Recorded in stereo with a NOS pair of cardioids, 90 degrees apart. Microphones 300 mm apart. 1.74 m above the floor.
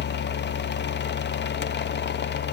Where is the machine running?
40° left, 1.1 m.